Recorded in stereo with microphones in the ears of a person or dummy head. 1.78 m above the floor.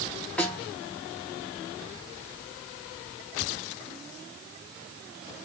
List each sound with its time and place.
0.4 s a snare drum: 5° left (ahead or behind), 4 m